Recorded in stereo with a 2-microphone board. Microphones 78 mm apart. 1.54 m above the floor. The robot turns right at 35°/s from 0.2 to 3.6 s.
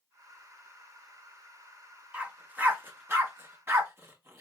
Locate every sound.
2.1 s a dog barking: 15° right (ahead or behind), 1.0 m; by 4.4 s 30° right (ahead or behind), 1.0 m